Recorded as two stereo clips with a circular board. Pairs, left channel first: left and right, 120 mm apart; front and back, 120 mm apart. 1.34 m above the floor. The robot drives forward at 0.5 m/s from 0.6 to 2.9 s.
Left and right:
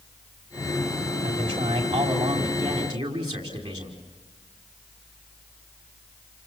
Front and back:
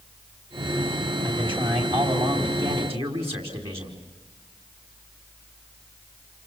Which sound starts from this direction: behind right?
A man speaking, at 1.2 s.